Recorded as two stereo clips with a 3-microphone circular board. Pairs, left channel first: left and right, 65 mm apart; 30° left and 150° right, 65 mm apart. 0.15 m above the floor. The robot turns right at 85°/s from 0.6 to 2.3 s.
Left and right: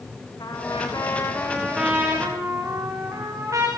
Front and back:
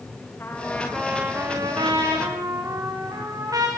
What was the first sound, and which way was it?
A trumpet, 90° left.